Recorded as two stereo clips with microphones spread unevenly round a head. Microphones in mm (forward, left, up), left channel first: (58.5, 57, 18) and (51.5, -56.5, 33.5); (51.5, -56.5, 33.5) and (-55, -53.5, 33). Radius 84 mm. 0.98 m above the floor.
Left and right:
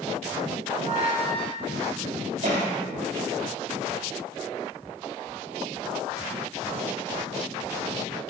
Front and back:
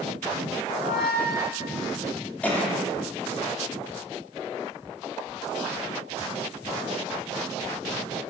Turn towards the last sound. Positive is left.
turn(degrees=-80)